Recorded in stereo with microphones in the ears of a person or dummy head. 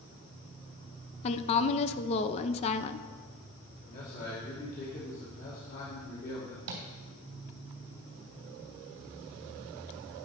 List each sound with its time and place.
1.2 s a woman speaking: 30° left (ahead or behind), 0.5 m
3.9 s a man speaking: 45° left (ahead or behind), 2.5 m
6.7 s tapping: 75° right (ahead or behind), 3 m